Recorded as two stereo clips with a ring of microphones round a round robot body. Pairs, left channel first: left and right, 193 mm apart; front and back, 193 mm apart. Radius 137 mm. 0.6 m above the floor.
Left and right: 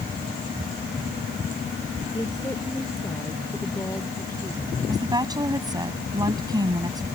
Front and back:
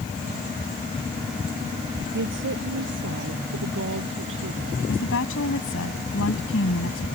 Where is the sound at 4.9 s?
20° right.